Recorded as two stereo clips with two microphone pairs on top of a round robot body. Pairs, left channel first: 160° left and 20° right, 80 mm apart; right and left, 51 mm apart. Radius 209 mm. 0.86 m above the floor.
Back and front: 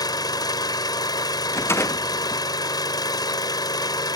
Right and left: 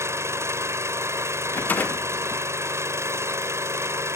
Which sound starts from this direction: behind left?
An engine running, at 0.0 s.